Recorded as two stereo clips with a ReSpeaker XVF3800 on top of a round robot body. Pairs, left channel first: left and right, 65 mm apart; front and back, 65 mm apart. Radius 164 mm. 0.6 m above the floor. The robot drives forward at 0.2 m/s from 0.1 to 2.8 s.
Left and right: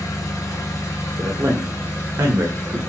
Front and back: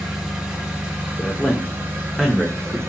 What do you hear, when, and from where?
0.0 s an engine running: 100° left, 0.9 m; by 2.9 s 135° left, 1.1 m
1.2 s a man speaking: 65° right, 0.7 m; by 2.8 s 105° right, 0.7 m